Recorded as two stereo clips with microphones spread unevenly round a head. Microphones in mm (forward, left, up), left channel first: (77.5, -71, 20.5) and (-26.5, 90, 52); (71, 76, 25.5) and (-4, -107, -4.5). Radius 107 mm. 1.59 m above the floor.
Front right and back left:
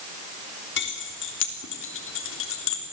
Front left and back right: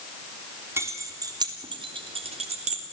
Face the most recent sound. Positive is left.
turn(degrees=-60)